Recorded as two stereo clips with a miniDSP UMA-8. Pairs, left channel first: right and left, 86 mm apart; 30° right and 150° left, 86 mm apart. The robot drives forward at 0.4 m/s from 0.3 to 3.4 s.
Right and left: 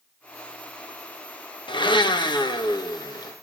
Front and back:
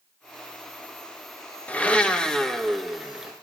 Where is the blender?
100° right, 1.5 m; by 3.3 s 125° right, 1.7 m.